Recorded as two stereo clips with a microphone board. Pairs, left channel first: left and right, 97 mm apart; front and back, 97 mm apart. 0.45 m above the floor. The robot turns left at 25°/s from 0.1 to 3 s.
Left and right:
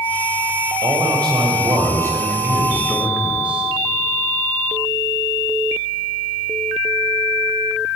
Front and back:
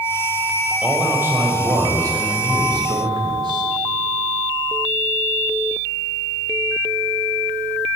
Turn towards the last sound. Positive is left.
turn(degrees=-165)